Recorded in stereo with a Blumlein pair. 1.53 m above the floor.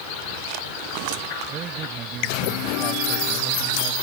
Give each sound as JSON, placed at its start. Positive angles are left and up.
{"t": 1.5, "sound": "a man speaking", "azimuth_deg": -30}